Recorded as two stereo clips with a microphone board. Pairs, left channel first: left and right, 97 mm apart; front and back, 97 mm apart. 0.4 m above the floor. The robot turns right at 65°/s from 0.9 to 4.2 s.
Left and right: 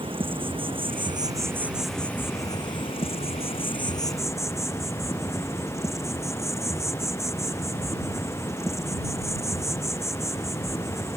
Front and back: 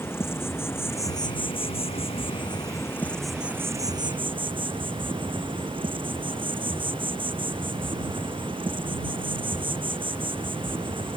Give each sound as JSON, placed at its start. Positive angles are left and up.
{"t": 0.0, "sound": "an insect", "azimuth_deg": -65}